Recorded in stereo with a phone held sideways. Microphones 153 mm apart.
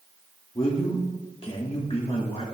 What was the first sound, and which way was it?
A man speaking, 40° left (ahead or behind).